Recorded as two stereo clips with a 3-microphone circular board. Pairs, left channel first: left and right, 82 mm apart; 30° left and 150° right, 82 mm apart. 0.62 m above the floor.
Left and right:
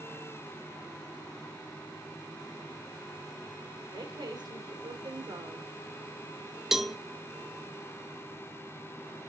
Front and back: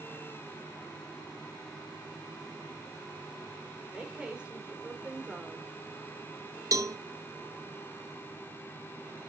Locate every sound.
3.9 s a woman speaking: 75° right, 2 m
6.7 s a cowbell: 175° right, 0.6 m